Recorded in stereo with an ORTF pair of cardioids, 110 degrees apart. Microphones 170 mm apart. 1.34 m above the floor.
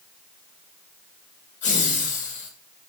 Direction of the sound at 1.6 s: 45° left.